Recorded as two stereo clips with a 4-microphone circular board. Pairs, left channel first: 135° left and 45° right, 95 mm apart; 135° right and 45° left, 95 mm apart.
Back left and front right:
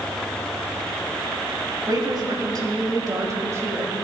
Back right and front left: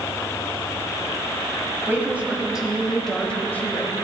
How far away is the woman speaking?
About 1.7 m.